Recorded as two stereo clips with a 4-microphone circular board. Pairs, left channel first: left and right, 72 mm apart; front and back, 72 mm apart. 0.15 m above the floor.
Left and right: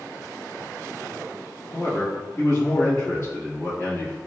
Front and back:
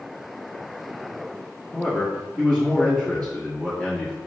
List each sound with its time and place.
1.7 s a man speaking: 65° left, 1.6 m